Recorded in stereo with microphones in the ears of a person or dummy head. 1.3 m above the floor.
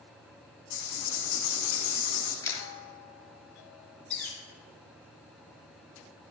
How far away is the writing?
About 1.6 m.